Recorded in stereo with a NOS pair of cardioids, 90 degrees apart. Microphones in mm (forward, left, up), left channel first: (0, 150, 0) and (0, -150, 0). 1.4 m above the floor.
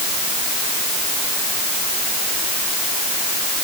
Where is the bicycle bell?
No bicycle bell in this recording.